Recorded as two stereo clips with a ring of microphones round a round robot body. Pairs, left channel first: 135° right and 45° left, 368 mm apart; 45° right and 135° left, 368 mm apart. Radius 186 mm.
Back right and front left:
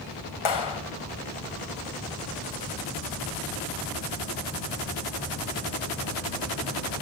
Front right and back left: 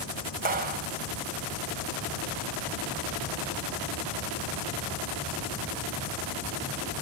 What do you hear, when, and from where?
0.5 s a clap: 155° right, 3.5 m